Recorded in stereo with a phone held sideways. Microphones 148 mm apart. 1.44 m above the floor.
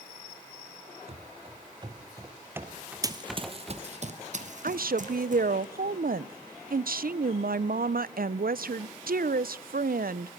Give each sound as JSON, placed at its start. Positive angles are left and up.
{"t": 1.1, "sound": "running footsteps", "side_deg": -40, "distance_m": 2.5}
{"t": 3.0, "sound": "running footsteps", "side_deg": -25, "distance_m": 1.5}
{"t": 4.6, "sound": "a woman speaking", "side_deg": -75, "distance_m": 0.6}